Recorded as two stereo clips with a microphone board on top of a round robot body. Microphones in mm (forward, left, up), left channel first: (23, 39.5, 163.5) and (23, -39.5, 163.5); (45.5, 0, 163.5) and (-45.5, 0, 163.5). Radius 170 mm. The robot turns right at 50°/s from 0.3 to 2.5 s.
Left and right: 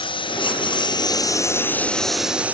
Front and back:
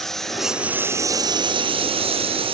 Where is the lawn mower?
85° left; by 2.5 s 165° right.